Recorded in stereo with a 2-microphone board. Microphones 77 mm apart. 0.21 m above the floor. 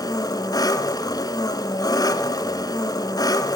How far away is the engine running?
About 1.3 m.